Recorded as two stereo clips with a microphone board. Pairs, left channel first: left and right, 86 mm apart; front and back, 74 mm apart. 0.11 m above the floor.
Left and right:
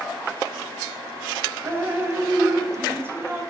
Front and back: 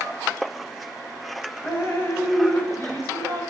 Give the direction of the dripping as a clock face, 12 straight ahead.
1 o'clock.